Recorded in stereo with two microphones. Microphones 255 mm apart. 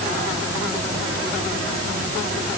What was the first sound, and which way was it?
Only background noise.